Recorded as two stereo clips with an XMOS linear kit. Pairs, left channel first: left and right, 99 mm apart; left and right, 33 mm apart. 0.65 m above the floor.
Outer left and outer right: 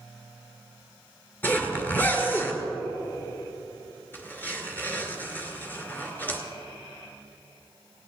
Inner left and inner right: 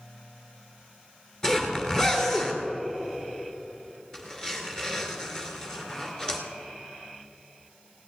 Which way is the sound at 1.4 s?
20° left (ahead or behind).